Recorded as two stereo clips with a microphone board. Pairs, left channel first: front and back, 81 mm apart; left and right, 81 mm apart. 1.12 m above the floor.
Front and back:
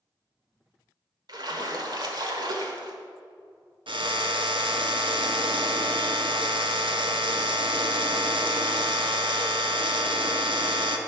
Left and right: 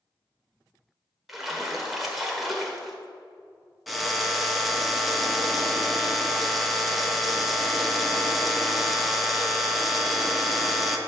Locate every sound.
1.3 s a splash: 175° right, 1.3 m
3.9 s a drill: straight behind, 0.9 m